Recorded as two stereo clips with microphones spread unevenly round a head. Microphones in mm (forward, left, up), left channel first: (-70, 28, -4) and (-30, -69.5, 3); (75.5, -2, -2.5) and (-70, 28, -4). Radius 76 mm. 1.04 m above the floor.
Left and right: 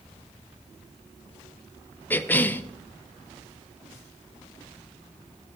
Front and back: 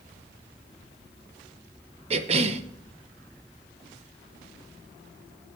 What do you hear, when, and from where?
2.1 s a cough: 170° left, 0.9 m